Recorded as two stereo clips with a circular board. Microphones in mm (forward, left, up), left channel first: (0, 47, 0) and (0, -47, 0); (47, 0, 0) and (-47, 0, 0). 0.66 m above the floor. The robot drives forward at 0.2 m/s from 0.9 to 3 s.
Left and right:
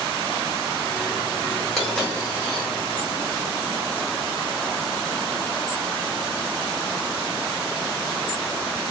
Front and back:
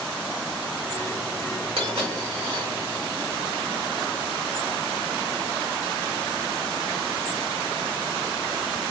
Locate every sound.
1.8 s a dropped coin: 170° left, 1.3 m